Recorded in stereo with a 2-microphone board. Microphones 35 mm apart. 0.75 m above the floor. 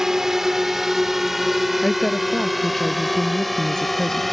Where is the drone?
15° right (ahead or behind); by 4.3 s centre (ahead or behind).